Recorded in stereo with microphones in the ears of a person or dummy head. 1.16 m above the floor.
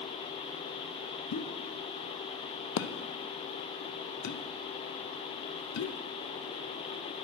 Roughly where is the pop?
Left.